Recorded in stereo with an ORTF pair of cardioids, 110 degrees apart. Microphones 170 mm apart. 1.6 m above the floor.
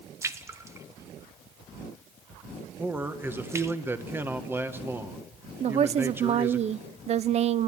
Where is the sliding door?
No sliding door in this recording.